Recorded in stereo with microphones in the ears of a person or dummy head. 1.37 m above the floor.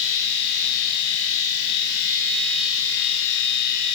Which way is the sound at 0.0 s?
70° left (ahead or behind).